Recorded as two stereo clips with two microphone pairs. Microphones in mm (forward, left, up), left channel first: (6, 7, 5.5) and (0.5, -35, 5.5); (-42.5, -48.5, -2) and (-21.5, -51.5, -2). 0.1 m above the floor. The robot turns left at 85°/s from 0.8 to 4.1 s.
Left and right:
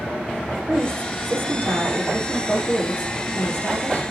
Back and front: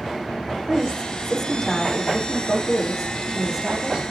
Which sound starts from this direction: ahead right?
A woman speaking, at 0.5 s.